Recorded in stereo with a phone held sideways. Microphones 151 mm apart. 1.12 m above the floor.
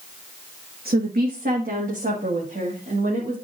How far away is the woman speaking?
About 0.9 m.